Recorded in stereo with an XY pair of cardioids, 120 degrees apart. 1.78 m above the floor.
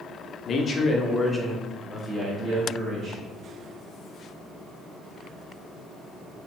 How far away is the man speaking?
About 0.6 m.